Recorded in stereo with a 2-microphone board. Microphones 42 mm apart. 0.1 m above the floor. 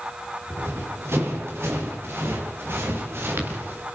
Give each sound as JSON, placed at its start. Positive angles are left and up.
{"t": 0.5, "sound": "running footsteps", "side_deg": -85, "distance_m": 9.5}